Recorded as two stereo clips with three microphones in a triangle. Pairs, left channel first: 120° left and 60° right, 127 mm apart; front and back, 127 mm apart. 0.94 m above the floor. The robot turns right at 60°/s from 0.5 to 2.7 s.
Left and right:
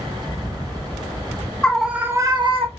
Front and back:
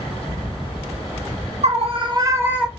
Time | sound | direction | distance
1.6 | a scream | 160° right | 1.0 m